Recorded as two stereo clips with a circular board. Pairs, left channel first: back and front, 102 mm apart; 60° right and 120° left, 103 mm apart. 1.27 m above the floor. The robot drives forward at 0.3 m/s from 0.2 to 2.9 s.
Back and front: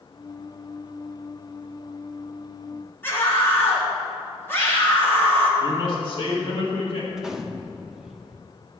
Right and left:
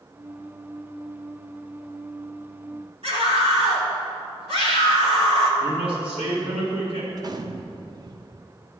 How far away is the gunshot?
About 0.6 m.